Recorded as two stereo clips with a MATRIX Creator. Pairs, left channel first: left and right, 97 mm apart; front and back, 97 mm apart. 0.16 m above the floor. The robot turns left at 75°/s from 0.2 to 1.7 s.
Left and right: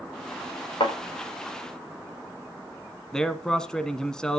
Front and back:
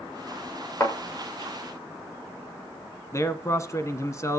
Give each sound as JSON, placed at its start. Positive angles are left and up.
{"t": 0.8, "sound": "a thud", "azimuth_deg": 60, "distance_m": 7.5}
{"t": 3.1, "sound": "a man speaking", "azimuth_deg": 10, "distance_m": 1.3}